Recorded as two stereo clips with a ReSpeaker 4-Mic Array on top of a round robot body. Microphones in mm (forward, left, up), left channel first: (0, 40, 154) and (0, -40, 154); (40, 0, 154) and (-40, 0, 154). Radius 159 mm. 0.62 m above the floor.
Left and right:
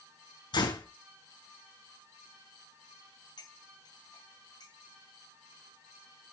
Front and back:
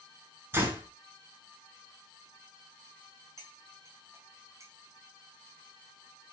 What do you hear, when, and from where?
0.5 s a door slam: 120° left, 4.5 m
3.4 s cutlery clinking: 125° left, 3.5 m